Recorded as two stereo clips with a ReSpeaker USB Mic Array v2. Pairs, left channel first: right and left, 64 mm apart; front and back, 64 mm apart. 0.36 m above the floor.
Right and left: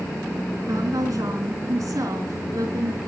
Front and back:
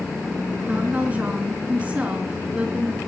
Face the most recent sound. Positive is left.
turn(degrees=115)